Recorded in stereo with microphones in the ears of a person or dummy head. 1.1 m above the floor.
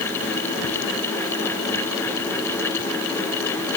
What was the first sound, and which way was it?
Only background noise.